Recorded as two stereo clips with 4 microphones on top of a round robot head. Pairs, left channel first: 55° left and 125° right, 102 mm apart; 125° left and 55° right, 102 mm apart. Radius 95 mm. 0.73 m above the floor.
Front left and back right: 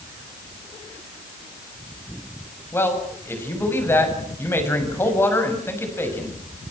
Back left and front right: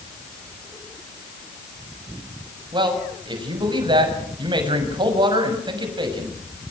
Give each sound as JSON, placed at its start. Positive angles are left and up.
{"t": 2.7, "sound": "a man speaking", "azimuth_deg": -10, "distance_m": 6.5}